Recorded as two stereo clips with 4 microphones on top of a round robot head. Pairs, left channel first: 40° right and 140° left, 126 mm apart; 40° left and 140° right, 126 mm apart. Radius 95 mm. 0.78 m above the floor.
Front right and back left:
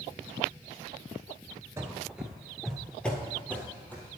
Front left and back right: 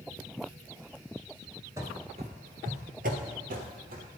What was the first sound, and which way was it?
Running footsteps, straight behind.